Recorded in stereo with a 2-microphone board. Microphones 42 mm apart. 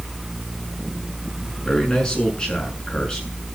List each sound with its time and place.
1.6 s a man speaking: 25° left (ahead or behind), 7 m